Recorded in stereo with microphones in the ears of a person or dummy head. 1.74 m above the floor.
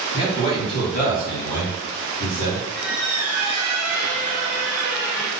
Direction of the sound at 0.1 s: 25° left (ahead or behind).